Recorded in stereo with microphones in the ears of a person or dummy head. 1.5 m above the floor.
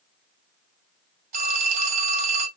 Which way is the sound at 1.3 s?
45° right (ahead or behind).